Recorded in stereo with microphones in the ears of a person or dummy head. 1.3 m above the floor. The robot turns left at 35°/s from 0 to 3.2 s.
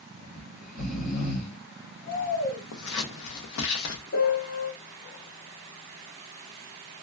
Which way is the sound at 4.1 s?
50° left (ahead or behind).